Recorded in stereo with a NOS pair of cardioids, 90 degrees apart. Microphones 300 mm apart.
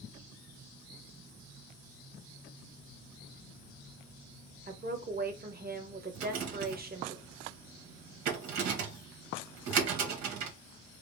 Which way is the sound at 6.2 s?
65° right.